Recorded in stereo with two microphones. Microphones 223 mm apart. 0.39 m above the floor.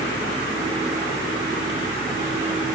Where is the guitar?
I don't hear a guitar.